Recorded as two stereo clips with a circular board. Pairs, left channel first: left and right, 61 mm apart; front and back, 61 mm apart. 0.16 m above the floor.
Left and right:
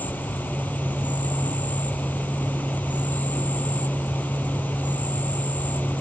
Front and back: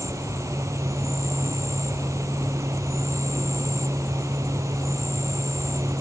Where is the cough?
I don't hear a cough.